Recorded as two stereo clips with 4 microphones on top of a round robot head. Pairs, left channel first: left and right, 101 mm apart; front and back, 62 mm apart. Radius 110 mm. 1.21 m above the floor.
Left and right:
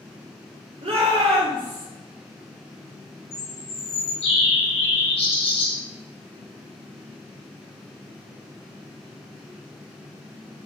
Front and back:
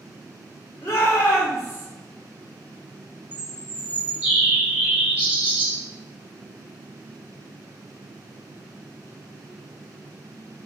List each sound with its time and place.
0.8 s a shout: 60° right, 2.5 m; by 1.9 s 45° right, 3 m
3.3 s a bird: 115° left, 1.8 m